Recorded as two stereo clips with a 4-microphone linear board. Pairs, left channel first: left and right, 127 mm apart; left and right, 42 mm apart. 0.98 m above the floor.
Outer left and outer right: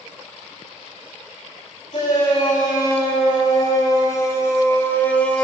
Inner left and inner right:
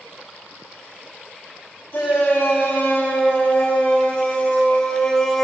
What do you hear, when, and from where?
1.9 s a shout: 35° left (ahead or behind), 5.5 m; by 5.5 s 5° left (ahead or behind), 1.5 m